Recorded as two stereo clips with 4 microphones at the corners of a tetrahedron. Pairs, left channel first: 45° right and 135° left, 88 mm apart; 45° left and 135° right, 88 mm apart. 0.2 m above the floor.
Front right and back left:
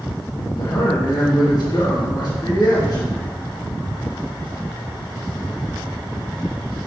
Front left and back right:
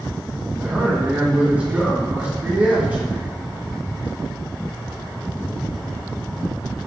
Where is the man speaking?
70° right, 2.5 m.